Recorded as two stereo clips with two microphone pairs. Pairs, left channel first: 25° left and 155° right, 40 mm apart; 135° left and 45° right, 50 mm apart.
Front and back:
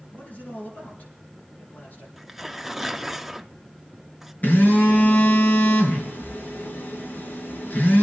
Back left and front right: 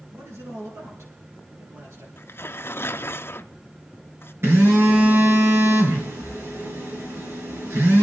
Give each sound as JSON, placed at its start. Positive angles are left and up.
{"t": 0.1, "sound": "a man speaking", "azimuth_deg": -25, "distance_m": 5.5}
{"t": 2.2, "sound": "tearing paper", "azimuth_deg": 125, "distance_m": 0.6}
{"t": 4.4, "sound": "a phone buzzing", "azimuth_deg": -15, "distance_m": 3.5}